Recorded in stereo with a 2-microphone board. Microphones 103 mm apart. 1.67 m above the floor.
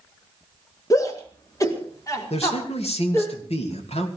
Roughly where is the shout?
Left.